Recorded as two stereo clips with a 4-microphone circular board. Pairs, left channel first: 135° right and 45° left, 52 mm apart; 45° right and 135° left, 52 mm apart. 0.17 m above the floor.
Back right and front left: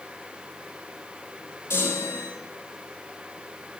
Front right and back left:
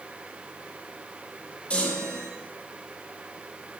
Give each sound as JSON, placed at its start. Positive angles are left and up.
{"t": 1.7, "sound": "a chime", "azimuth_deg": -110, "distance_m": 4.5}